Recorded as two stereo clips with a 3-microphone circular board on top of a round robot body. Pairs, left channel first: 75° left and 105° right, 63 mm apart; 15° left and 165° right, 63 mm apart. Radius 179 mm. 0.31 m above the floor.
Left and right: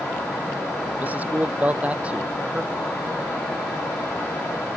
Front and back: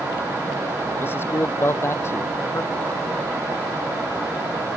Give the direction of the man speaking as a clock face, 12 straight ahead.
1 o'clock.